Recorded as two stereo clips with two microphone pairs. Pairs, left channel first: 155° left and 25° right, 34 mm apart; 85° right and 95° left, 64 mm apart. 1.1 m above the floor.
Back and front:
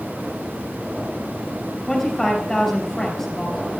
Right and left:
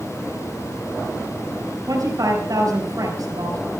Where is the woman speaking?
75° left, 5.5 m.